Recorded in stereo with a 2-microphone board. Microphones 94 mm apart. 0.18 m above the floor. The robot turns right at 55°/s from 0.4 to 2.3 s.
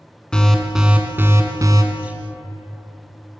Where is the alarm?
170° left, 1.1 m; by 1.8 s 115° right, 1.1 m.